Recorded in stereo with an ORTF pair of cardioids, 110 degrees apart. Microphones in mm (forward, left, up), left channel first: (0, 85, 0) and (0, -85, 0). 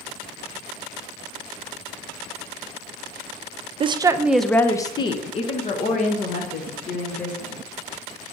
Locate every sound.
3.8 s a woman speaking: 35° right, 0.5 m; by 7.6 s 60° left, 1.9 m